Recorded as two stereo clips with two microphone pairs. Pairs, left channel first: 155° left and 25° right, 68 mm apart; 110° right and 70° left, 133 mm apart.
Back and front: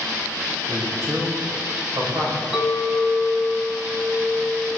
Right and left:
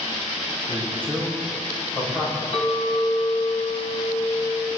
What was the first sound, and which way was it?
A man speaking, 30° right.